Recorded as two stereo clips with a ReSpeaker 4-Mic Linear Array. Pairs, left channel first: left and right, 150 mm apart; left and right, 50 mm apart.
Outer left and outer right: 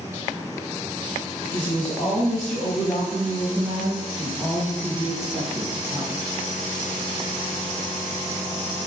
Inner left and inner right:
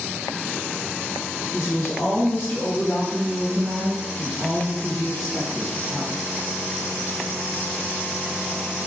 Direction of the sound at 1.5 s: 50° left (ahead or behind).